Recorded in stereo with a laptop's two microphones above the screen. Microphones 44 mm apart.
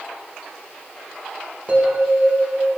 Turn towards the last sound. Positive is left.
turn(degrees=-30)  # may be behind; listen again after turning